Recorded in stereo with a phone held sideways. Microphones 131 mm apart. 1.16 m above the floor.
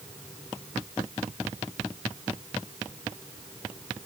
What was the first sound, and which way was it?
Only background noise.